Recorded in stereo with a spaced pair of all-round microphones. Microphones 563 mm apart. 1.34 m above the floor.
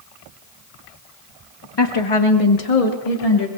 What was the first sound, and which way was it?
A woman speaking, 45° left (ahead or behind).